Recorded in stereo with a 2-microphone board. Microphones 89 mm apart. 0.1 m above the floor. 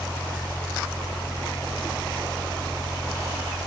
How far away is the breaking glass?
No breaking glass in this recording.